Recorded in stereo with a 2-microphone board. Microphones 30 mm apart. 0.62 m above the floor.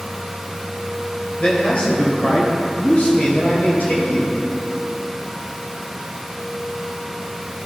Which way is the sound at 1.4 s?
30° left (ahead or behind).